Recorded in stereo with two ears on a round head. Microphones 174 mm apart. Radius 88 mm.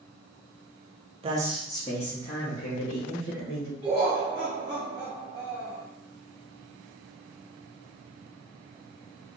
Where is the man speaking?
30° right (ahead or behind), 0.6 m; by 3.7 s 75° left (ahead or behind), 2 m.